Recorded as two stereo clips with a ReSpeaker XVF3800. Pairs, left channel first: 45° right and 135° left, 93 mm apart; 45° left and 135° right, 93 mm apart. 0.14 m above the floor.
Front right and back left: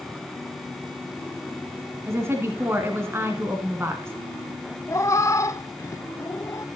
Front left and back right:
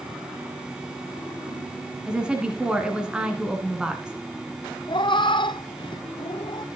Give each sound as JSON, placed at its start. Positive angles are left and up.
{"t": 2.1, "sound": "a woman speaking", "azimuth_deg": 155, "distance_m": 1.6}
{"t": 4.9, "sound": "a cat meowing", "azimuth_deg": 10, "distance_m": 0.7}